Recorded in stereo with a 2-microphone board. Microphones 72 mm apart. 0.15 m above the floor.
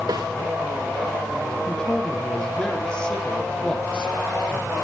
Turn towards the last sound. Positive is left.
turn(degrees=10)  # may be behind; listen again after turning